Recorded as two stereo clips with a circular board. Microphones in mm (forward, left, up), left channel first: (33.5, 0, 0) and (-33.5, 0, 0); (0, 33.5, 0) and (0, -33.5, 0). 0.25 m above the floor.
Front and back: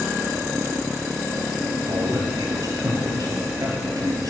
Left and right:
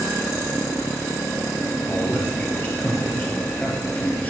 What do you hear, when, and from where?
1.9 s a man speaking: 160° left, 4.5 m